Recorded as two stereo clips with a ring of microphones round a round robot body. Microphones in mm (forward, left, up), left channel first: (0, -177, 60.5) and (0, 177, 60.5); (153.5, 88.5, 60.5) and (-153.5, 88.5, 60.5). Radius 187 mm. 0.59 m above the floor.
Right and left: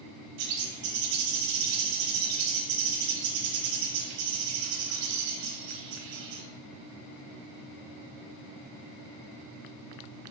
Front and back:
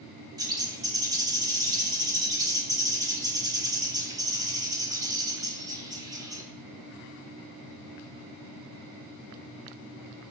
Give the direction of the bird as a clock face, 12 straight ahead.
9 o'clock.